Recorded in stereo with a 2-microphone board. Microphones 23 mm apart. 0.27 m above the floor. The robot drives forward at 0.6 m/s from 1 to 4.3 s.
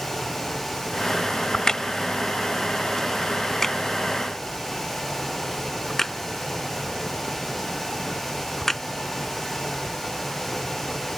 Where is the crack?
30° left (ahead or behind); by 8.8 s 10° left (ahead or behind).